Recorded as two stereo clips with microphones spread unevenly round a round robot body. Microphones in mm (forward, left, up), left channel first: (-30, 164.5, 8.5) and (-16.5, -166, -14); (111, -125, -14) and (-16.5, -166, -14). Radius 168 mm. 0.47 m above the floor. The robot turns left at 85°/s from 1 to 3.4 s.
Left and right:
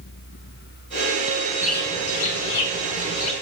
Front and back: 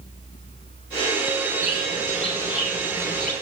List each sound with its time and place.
1.6 s a bird: 170° right, 2 m; by 3.3 s 45° left, 2 m